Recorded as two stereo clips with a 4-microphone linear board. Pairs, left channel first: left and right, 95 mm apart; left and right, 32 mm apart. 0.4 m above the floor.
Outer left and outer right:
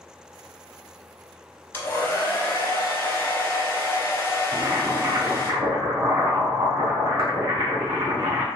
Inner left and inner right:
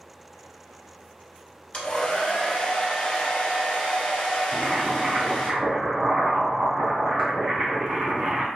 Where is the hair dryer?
25° left (ahead or behind), 1.0 m.